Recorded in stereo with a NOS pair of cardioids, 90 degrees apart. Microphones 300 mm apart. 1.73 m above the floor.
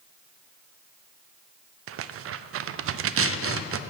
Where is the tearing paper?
50° right, 0.5 m.